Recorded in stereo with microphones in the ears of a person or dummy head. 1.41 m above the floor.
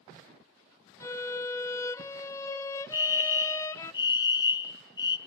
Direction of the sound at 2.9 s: 20° left (ahead or behind).